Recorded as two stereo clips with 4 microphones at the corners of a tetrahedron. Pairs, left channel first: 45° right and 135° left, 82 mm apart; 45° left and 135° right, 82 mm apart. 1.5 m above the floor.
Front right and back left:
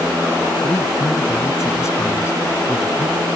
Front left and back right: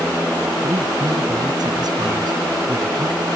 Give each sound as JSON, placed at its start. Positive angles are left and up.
{"t": 0.6, "sound": "a man speaking", "azimuth_deg": -100}